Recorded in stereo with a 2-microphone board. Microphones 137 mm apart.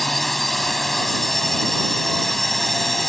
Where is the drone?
Centre (ahead or behind).